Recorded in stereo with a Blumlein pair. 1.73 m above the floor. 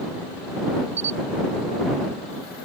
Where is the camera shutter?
70° right.